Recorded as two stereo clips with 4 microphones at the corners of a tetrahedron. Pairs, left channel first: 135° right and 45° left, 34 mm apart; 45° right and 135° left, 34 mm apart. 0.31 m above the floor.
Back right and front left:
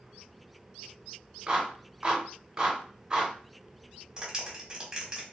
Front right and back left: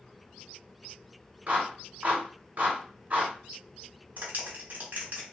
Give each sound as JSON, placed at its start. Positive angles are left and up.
{"t": 1.5, "sound": "a clap", "azimuth_deg": 100, "distance_m": 1.5}
{"t": 4.2, "sound": "a clap", "azimuth_deg": 105, "distance_m": 1.5}